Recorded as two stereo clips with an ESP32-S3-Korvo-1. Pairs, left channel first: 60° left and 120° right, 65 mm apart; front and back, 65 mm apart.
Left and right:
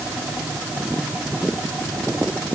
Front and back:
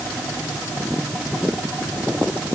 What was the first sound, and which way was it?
Only background noise.